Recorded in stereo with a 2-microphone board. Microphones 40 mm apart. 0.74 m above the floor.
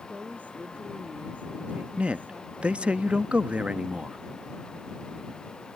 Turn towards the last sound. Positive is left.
turn(degrees=-30)  # may be behind; listen again after turning